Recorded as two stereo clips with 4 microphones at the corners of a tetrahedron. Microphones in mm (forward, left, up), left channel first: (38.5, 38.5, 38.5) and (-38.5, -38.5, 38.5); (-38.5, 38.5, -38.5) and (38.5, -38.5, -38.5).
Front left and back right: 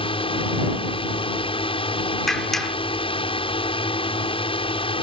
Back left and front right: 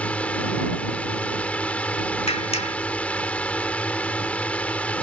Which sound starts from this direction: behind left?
A clap, at 2.3 s.